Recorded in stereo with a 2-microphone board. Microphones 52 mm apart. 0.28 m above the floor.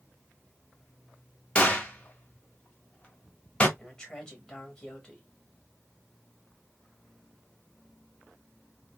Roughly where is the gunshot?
Left.